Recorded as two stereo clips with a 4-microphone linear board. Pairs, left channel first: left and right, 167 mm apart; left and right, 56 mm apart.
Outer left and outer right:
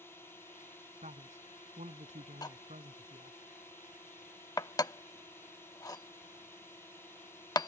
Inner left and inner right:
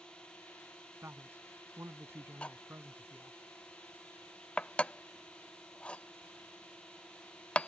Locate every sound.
0.0 s a drone: 15° left (ahead or behind)
1.0 s a man speaking: 45° right (ahead or behind)
2.4 s cutlery clinking: 20° left (ahead or behind)